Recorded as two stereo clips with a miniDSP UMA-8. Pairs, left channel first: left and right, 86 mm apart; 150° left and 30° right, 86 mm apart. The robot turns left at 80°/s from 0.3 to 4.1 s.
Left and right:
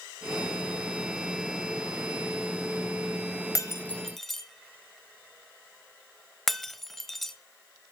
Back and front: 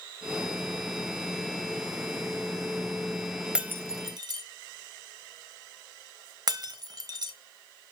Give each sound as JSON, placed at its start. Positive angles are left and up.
{"t": 3.5, "sound": "breaking glass", "azimuth_deg": 50, "distance_m": 1.0}